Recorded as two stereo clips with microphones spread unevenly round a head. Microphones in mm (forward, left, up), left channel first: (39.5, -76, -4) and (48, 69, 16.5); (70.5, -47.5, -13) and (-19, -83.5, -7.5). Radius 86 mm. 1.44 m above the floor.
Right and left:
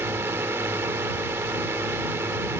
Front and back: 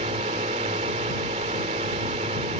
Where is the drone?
165° left.